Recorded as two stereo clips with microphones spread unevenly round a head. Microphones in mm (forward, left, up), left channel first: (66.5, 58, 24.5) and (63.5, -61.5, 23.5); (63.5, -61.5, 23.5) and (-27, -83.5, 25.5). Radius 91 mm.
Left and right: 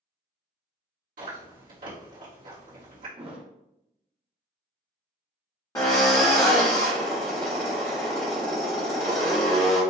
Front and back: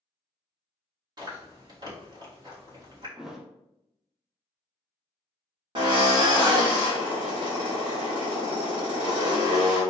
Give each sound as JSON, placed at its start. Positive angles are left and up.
{"t": 1.2, "sound": "chewing", "azimuth_deg": -120, "distance_m": 1.9}
{"t": 3.2, "sound": "a thud", "azimuth_deg": -80, "distance_m": 0.8}
{"t": 5.8, "sound": "a drill", "azimuth_deg": 155, "distance_m": 1.2}